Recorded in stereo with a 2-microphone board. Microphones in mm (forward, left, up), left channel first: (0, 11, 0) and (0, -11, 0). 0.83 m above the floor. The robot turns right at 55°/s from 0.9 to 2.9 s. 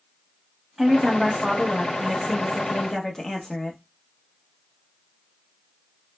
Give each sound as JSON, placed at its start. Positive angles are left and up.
{"t": 0.8, "sound": "a woman speaking", "azimuth_deg": -25, "distance_m": 0.8}